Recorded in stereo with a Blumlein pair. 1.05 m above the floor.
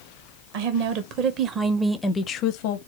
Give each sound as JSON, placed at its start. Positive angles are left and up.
{"t": 0.5, "sound": "a woman speaking", "azimuth_deg": -50, "distance_m": 1.2}